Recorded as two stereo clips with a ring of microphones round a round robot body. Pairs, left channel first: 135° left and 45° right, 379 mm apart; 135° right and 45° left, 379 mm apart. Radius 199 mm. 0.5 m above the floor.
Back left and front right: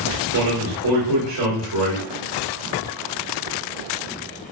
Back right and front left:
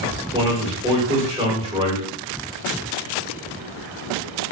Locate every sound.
0.3 s a man speaking: 30° right, 1.4 m